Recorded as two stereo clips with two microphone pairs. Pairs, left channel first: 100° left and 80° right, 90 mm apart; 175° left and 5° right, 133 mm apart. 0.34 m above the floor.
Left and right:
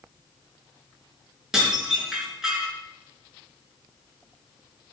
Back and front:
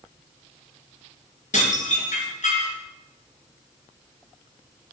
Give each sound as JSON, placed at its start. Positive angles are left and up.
{"t": 1.5, "sound": "dishes clattering", "azimuth_deg": -165, "distance_m": 3.5}